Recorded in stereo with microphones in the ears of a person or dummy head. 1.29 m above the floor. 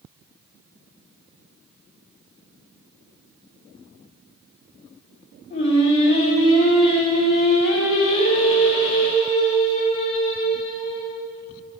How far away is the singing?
About 2.5 m.